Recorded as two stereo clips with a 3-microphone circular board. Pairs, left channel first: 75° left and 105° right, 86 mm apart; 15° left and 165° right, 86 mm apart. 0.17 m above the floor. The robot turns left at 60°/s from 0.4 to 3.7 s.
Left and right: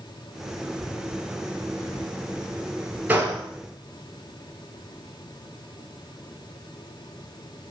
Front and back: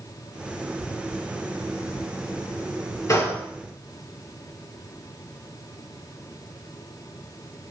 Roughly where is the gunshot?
Ahead right.